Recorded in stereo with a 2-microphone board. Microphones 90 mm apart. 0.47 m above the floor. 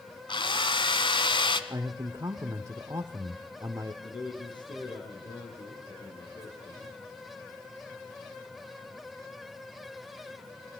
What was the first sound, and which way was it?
A drill, 65° left (ahead or behind).